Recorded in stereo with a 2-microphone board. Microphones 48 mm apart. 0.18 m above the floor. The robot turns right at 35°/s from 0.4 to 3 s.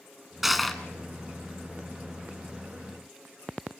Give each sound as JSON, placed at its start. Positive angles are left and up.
{"t": 0.4, "sound": "crushing", "side_deg": -5, "distance_m": 1.5}